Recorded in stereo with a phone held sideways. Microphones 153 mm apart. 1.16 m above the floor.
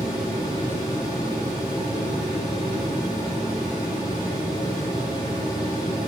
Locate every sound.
0.0 s a fan: 30° left (ahead or behind), 4 m